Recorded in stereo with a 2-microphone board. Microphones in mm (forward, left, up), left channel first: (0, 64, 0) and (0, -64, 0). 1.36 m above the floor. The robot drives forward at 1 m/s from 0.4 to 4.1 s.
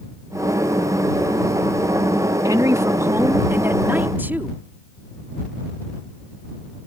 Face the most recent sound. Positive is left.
turn(degrees=-15)  # may be behind; listen again after turning